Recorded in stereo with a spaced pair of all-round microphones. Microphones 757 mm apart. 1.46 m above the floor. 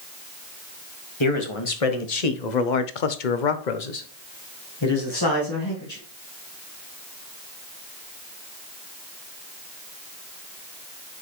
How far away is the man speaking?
About 1.6 m.